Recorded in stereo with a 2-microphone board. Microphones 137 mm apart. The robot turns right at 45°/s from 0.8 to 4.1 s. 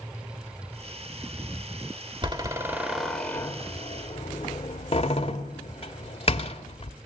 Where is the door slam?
30° right (ahead or behind), 1.6 m; by 6.9 s 40° left (ahead or behind), 1.6 m.